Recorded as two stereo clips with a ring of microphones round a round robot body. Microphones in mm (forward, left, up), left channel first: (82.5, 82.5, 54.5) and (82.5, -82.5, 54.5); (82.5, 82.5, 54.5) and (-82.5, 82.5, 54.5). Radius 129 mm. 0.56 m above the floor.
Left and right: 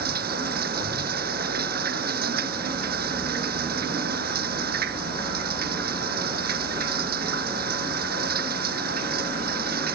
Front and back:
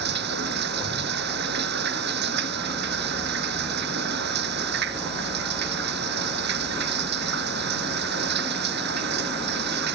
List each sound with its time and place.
0.0 s running water: 140° right